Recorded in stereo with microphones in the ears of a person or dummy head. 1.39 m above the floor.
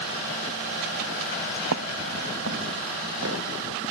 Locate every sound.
1.7 s footsteps: 75° right (ahead or behind); by 3.5 s 70° right (ahead or behind)